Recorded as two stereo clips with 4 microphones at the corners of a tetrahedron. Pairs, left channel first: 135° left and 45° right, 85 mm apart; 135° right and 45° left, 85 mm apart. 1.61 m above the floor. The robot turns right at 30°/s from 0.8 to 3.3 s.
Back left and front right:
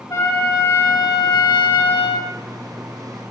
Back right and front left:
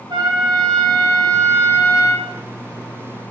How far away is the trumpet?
About 2 m.